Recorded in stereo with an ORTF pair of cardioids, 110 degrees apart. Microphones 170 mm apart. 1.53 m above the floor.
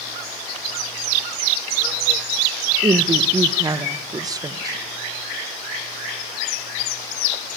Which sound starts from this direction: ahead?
A woman speaking, at 2.8 s.